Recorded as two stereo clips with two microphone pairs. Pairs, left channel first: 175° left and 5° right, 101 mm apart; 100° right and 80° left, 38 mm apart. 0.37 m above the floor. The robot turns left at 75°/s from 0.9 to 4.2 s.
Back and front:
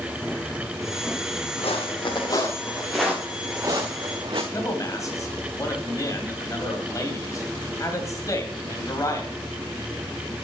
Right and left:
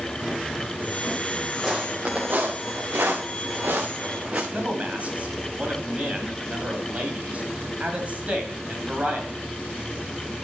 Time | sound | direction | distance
1.6 | footsteps | 170° left | 3 m
4.5 | a man speaking | 125° left | 2 m